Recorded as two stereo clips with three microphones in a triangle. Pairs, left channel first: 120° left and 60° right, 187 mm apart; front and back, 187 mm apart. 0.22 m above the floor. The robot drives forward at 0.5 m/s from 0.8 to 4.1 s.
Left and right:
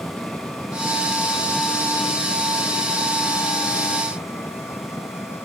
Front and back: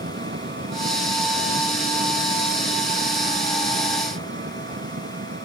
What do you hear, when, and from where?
0.0 s an engine running: 155° right; by 5.5 s 160° right